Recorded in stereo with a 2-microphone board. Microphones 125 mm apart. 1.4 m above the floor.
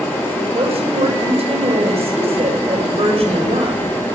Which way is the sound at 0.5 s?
55° right (ahead or behind).